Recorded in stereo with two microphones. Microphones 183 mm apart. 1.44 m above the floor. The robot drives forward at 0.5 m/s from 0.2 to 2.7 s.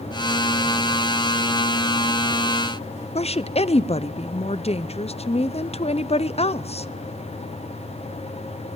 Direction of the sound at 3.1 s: 35° left (ahead or behind).